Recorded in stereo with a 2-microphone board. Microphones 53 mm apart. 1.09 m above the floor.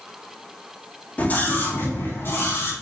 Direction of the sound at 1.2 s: 30° left (ahead or behind).